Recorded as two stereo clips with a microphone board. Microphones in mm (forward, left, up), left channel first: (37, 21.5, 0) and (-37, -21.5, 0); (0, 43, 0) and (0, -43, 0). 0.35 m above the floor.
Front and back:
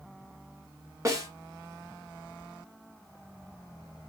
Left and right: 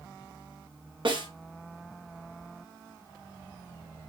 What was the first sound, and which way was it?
A snare drum, 100° right.